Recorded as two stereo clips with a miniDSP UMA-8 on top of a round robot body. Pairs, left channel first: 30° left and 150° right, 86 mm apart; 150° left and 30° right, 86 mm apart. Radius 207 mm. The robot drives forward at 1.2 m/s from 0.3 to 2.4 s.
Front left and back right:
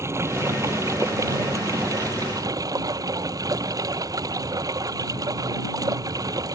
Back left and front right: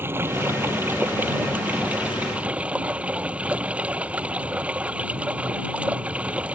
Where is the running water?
95° right; by 6.5 s 105° right.